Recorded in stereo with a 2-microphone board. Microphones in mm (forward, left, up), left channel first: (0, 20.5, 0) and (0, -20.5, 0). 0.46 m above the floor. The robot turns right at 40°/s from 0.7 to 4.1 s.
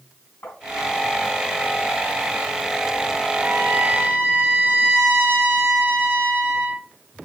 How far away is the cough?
I don't hear a cough.